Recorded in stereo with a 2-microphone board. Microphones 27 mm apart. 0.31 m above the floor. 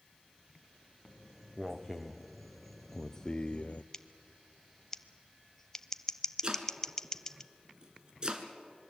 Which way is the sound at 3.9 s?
20° left (ahead or behind).